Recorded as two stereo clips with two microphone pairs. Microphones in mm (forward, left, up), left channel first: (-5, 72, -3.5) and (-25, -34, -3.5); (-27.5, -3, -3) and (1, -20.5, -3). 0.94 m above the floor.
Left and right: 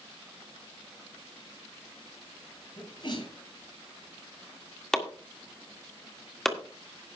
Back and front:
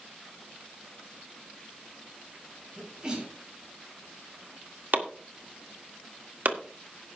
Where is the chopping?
5° right, 1.7 m.